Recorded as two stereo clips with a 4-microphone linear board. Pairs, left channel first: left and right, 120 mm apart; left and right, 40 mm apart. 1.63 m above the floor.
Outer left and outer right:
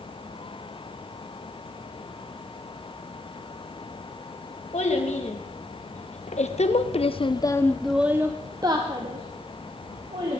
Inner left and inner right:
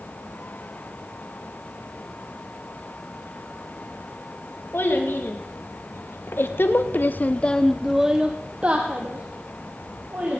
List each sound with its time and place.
4.7 s a child speaking: 70° left (ahead or behind), 2.5 m; by 10.4 s 50° right (ahead or behind), 2.5 m